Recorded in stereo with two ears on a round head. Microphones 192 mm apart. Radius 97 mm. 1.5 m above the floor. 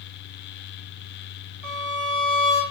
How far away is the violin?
About 1.7 m.